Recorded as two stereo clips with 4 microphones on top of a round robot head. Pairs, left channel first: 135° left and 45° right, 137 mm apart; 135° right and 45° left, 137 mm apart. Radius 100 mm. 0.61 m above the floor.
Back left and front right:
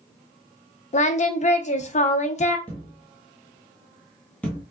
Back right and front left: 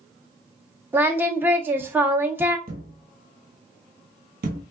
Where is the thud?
55° left, 0.8 m.